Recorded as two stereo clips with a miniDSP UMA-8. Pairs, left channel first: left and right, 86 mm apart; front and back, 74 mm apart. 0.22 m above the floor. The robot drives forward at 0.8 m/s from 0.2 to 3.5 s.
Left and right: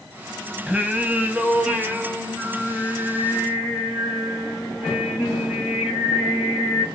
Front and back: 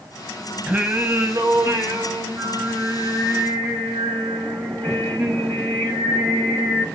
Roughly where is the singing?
Behind right.